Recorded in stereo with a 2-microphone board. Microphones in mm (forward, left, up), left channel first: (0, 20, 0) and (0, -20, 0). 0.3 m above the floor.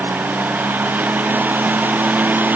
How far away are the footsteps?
I don't hear footsteps.